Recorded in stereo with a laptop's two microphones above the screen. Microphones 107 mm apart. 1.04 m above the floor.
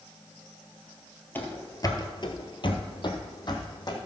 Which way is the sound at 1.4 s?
20° left (ahead or behind).